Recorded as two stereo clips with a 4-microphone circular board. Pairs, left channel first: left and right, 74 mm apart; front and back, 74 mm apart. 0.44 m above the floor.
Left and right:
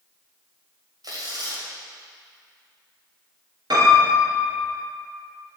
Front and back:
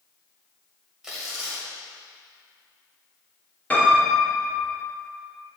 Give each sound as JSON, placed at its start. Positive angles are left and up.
{"t": 1.0, "sound": "tearing paper", "azimuth_deg": -100, "distance_m": 1.9}
{"t": 3.7, "sound": "a piano", "azimuth_deg": -70, "distance_m": 2.5}